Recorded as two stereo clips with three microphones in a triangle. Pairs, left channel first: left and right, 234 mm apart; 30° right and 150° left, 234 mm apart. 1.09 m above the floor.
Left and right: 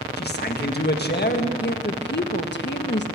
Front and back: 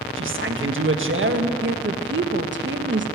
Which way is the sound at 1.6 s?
125° left.